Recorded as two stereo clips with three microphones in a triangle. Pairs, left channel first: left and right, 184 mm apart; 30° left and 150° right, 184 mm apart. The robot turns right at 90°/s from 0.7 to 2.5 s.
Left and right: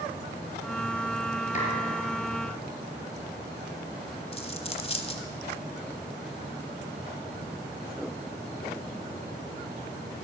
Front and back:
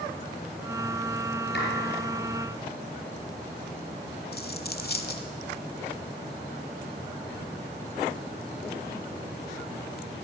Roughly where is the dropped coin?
Ahead left.